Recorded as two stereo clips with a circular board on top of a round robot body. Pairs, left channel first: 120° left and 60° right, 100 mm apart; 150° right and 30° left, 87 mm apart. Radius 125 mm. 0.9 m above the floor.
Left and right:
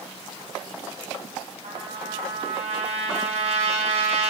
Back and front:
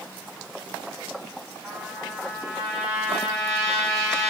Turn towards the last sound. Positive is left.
turn(degrees=-55)